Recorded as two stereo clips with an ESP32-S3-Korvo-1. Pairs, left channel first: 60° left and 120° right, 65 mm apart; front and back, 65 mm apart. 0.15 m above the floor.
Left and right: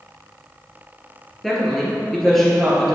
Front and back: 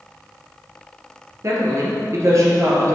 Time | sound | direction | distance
1.4 | a woman speaking | 145° left | 2.5 m